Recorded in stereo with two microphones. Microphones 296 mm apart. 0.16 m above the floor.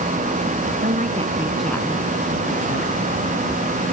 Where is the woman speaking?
35° right (ahead or behind); by 3.0 s 45° left (ahead or behind).